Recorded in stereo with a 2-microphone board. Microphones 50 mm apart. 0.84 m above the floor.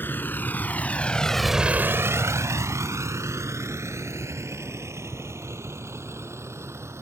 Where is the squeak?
No squeak in this recording.